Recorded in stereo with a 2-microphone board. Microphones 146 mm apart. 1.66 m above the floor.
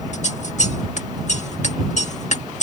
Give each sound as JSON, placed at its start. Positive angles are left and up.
{"t": 0.1, "sound": "scissors", "side_deg": 50}